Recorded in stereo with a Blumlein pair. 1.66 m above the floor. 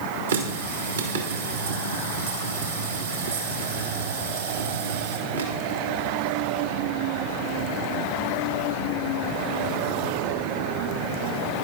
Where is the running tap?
70° right, 2 m.